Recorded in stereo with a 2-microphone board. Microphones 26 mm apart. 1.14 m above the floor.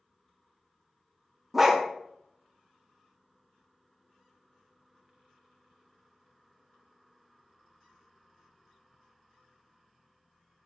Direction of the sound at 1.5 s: 10° right (ahead or behind).